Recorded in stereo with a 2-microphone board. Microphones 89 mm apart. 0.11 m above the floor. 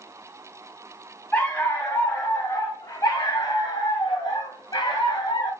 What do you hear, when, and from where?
1.3 s a dog barking: 25° left (ahead or behind), 5 m; by 5.5 s 55° left (ahead or behind), 8 m